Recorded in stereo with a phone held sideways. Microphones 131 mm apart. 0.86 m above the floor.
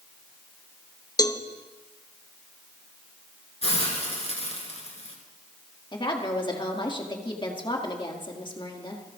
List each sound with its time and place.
1.2 s a cowbell: 30° left (ahead or behind), 0.6 m
3.6 s a hiss: 50° left (ahead or behind), 3 m
5.9 s a woman speaking: 35° left (ahead or behind), 1.8 m